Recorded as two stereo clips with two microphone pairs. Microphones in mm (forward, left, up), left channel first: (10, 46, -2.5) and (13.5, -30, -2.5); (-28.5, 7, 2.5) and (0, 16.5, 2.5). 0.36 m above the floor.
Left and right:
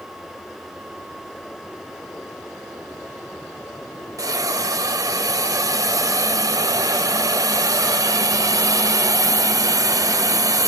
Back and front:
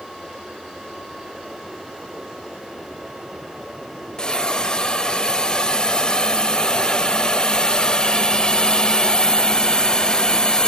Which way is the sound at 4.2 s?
100° right.